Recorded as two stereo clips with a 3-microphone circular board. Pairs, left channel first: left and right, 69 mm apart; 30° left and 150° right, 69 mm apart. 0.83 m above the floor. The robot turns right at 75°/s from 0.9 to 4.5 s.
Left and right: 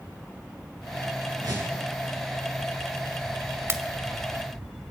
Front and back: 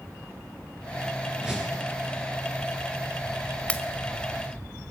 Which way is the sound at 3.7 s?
40° right.